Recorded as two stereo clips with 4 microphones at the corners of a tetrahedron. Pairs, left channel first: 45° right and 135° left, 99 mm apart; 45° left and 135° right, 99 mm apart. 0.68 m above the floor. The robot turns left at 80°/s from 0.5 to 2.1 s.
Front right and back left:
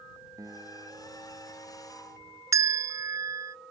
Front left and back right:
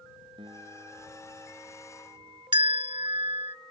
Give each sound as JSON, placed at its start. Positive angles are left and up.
{"t": 0.4, "sound": "a guitar", "azimuth_deg": -170}
{"t": 2.5, "sound": "a bell", "azimuth_deg": -170}